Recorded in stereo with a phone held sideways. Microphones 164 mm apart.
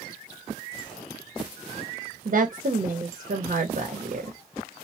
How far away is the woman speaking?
About 0.7 m.